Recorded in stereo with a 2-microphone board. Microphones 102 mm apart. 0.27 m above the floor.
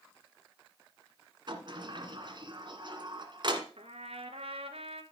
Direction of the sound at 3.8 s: 80° right.